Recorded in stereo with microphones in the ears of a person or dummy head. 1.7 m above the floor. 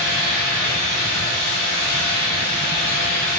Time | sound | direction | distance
0.0 | a fan | 50° left (ahead or behind) | 0.8 m